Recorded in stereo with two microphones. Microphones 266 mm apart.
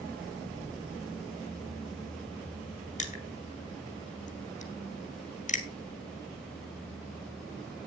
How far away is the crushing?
About 1.7 m.